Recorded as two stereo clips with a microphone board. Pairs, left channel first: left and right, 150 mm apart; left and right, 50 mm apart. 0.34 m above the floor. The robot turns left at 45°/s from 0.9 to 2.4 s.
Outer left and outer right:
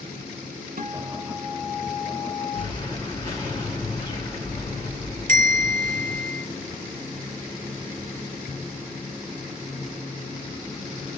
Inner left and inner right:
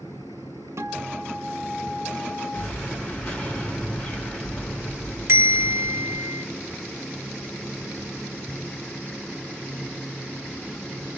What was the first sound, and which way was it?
A guitar, 105° right.